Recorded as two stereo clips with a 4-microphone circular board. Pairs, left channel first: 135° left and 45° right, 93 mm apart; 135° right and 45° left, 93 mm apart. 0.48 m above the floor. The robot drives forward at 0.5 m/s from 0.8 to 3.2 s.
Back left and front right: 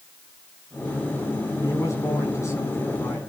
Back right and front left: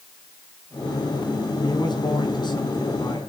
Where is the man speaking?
170° right, 4.5 m.